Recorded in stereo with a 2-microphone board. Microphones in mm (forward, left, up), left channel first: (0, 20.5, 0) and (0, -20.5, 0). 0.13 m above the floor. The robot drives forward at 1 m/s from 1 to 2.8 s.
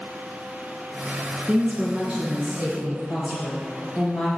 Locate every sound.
1.5 s a woman speaking: 35° right (ahead or behind), 1.3 m; by 4.3 s 20° right (ahead or behind), 1.9 m